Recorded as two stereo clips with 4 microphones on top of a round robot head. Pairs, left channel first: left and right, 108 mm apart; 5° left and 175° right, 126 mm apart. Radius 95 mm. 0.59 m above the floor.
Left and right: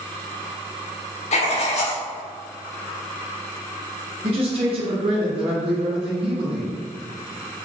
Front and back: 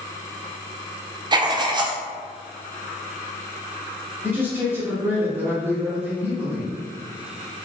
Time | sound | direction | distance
1.3 | writing | 130° left | 0.5 m
4.2 | a man speaking | 100° right | 1.4 m